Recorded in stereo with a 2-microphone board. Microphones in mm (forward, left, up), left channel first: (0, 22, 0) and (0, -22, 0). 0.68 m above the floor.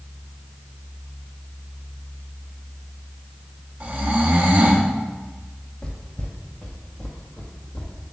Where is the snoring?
35° right (ahead or behind), 1.1 m.